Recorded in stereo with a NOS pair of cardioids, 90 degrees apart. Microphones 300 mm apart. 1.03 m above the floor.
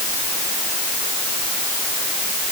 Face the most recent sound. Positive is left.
No sound to turn to.